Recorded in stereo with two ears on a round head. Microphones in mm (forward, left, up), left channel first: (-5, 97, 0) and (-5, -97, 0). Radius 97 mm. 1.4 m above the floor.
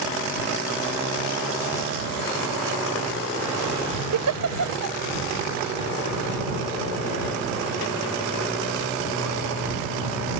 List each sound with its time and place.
4.1 s a giggle: 85° right